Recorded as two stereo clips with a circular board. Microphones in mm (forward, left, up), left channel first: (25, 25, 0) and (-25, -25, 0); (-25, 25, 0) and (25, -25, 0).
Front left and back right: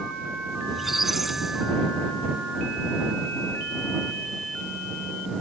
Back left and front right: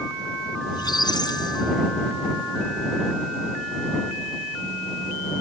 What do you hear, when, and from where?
0.7 s a squeak: 140° left